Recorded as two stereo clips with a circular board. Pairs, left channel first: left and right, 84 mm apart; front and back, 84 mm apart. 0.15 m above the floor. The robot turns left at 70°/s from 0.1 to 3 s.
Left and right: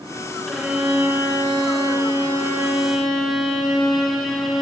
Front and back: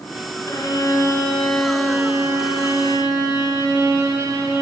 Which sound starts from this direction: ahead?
A violin, at 0.5 s.